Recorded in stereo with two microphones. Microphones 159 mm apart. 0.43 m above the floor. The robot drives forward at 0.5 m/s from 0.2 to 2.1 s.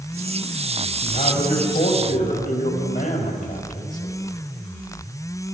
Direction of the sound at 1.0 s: 55° left (ahead or behind).